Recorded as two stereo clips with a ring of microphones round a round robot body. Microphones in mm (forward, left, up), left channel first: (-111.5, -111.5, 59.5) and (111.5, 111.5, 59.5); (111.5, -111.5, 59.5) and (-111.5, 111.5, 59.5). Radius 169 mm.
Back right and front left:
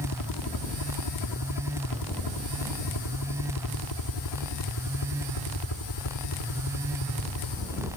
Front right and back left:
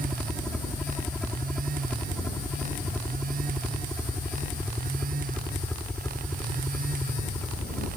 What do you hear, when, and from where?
0.0 s a helicopter: 135° right; by 8.0 s 130° right